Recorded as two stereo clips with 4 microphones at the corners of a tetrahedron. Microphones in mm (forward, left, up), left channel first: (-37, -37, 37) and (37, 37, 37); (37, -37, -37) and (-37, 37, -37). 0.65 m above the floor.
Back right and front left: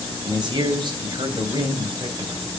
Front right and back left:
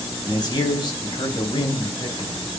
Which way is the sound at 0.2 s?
Straight ahead.